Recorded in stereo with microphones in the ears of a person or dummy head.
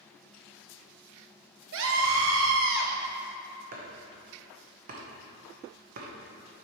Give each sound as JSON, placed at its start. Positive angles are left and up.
{"t": 1.7, "sound": "a scream", "side_deg": -65, "distance_m": 0.6}
{"t": 3.7, "sound": "chopping", "side_deg": -45, "distance_m": 0.9}